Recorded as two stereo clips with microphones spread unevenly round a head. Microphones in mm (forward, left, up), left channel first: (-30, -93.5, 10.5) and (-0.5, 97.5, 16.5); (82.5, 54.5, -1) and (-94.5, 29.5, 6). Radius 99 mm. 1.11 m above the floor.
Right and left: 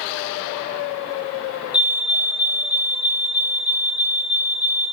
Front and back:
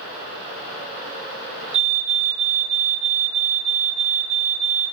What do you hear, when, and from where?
1.7 s a fire alarm: 165° right, 3.5 m